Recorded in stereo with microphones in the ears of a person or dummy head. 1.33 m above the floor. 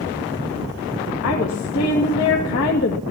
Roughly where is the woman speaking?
Left.